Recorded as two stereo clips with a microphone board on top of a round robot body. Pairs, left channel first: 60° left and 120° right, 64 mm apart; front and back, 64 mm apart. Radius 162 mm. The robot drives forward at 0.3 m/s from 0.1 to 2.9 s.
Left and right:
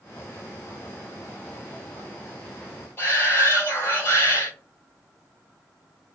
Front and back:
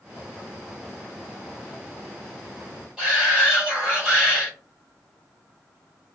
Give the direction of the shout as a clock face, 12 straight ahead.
8 o'clock.